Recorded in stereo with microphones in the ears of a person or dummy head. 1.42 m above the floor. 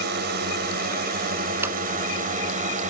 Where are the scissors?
10° right (ahead or behind).